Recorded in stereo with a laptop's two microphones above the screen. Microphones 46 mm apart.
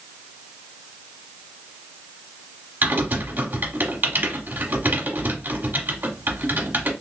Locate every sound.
2.8 s typing on a keyboard: 40° right (ahead or behind), 1.0 m